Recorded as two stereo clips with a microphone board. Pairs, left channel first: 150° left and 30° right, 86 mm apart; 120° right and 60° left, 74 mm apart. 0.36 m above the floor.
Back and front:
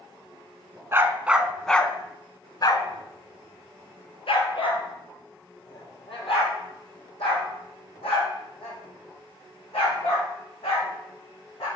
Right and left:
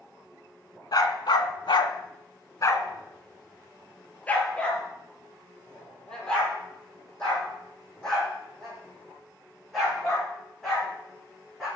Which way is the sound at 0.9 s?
90° right.